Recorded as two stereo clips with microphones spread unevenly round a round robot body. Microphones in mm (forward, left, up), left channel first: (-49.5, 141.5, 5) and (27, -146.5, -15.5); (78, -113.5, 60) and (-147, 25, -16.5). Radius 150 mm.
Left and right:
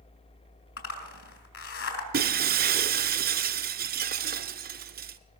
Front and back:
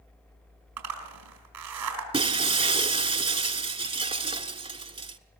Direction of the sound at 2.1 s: 135° right.